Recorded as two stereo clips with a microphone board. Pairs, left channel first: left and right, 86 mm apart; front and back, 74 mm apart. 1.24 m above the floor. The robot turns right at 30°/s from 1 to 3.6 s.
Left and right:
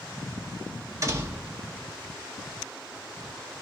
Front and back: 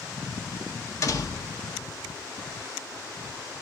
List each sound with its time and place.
1.0 s a door slam: 40° right, 1.1 m; by 1.6 s 25° right, 1.1 m